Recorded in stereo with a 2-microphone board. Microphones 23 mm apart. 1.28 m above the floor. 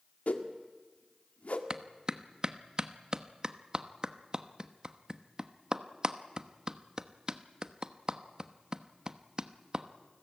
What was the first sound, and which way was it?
A whoosh, 60° left (ahead or behind).